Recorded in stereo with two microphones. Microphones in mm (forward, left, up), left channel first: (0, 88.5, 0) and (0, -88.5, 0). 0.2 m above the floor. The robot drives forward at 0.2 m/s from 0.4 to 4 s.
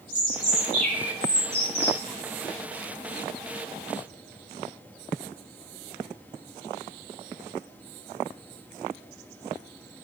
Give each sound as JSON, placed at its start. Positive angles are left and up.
{"t": 0.1, "sound": "a bird", "side_deg": -45, "distance_m": 1.1}